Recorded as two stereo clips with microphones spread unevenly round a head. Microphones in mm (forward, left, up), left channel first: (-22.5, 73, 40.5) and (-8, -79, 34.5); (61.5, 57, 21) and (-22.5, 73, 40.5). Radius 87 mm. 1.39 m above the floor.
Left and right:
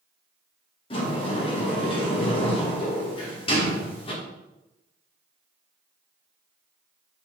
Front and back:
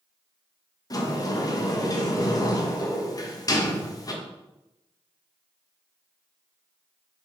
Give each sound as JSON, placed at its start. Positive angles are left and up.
{"t": 0.9, "sound": "a sliding door", "azimuth_deg": 35, "distance_m": 1.5}